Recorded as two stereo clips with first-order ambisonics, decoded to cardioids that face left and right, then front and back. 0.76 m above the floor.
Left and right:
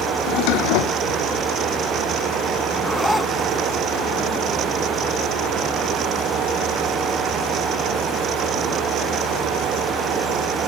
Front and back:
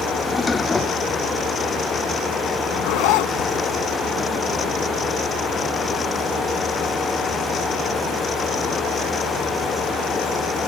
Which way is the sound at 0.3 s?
80° left.